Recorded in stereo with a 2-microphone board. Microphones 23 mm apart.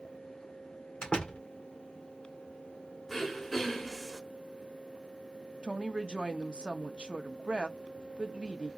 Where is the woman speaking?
45° right (ahead or behind), 0.8 m.